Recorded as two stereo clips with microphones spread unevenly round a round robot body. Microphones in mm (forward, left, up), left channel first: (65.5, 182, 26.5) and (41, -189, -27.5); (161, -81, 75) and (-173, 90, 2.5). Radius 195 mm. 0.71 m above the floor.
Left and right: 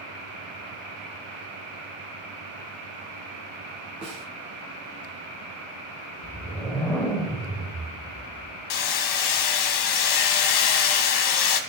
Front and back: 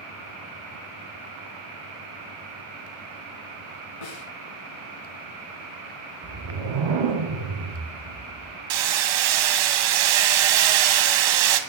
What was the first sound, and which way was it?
A snare drum, 20° right.